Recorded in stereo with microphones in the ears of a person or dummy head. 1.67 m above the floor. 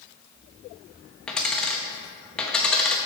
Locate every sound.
1.3 s a dropped coin: 5° left (ahead or behind), 1.0 m